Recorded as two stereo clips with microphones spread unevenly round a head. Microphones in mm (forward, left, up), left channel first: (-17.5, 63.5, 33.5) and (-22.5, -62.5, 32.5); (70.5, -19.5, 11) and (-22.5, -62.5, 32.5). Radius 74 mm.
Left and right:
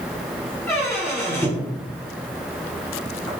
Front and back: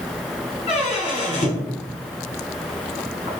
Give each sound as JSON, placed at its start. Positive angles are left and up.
{"t": 0.7, "sound": "a squeak", "azimuth_deg": 15, "distance_m": 1.4}